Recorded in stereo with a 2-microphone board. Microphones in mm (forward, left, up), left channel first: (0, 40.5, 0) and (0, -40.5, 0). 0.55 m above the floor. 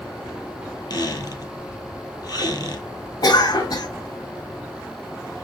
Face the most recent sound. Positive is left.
turn(degrees=60)  # may be behind; listen again after turning